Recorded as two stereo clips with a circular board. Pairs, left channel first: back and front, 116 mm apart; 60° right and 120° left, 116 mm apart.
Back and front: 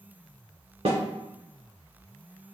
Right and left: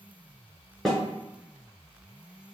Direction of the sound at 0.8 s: 30° left.